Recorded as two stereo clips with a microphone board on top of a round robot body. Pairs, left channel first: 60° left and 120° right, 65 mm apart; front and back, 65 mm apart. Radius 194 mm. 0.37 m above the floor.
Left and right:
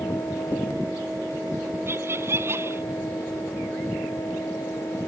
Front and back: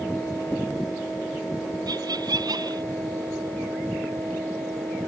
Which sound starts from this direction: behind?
Laughter, at 1.9 s.